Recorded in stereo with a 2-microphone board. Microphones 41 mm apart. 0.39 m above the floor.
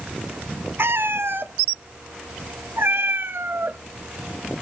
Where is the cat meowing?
65° right (ahead or behind), 0.6 m.